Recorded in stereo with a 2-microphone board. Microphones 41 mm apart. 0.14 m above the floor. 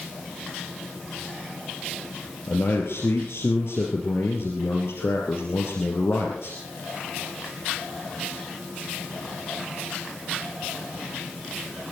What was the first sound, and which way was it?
A man speaking, 65° left (ahead or behind).